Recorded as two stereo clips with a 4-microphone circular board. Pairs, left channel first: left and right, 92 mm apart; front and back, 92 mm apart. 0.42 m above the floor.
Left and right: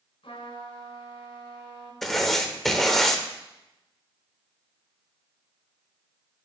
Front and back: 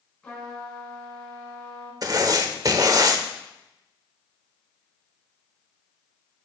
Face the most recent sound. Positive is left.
turn(degrees=175)